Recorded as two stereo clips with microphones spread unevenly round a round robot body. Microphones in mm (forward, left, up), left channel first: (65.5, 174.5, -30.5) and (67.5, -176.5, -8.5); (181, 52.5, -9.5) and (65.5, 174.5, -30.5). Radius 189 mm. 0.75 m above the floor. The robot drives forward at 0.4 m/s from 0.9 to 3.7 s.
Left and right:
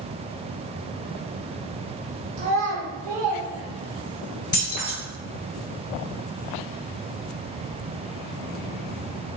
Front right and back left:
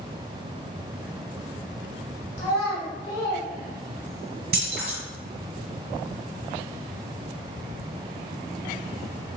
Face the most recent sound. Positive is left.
turn(degrees=170)